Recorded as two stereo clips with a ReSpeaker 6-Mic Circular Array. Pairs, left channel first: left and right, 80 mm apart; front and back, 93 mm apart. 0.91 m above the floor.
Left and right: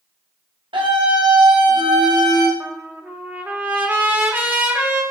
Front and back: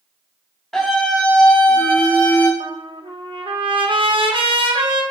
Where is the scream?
85° right, 4 m; by 2.5 s 70° right, 3 m.